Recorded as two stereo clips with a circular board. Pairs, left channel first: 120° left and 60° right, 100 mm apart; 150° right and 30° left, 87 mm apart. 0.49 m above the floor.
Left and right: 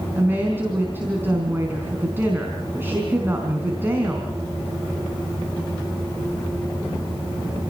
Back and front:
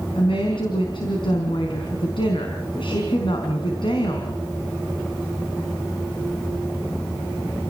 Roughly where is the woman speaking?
Behind right.